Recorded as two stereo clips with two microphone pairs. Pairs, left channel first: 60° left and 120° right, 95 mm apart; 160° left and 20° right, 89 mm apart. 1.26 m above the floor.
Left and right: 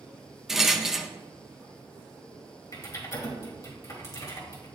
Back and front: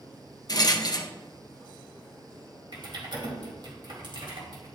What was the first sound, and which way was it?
A rattle, 155° left.